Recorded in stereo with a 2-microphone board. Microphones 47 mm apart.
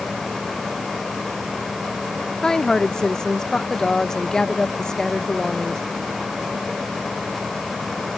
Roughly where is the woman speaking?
Centre.